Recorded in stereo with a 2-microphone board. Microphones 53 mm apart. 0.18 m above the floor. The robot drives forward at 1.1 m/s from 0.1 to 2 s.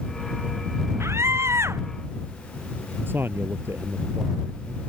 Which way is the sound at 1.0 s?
55° right (ahead or behind).